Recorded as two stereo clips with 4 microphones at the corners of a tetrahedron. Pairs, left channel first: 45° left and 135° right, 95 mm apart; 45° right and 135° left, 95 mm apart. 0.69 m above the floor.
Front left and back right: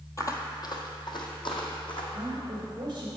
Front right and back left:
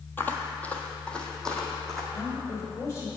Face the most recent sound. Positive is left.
turn(degrees=-100)